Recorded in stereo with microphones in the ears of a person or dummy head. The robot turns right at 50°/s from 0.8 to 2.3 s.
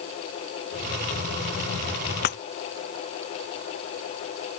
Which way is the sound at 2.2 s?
60° left (ahead or behind).